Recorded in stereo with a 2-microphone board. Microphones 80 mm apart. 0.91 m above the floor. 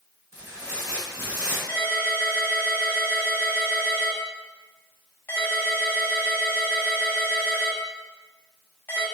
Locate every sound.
0.3 s tearing paper: 40° right (ahead or behind), 1.4 m
1.7 s a ringtone: 25° left (ahead or behind), 1.1 m